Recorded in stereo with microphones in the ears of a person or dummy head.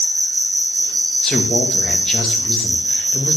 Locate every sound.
0.0 s an insect: 65° right (ahead or behind), 4 m
1.2 s a man speaking: 5° left (ahead or behind), 1.4 m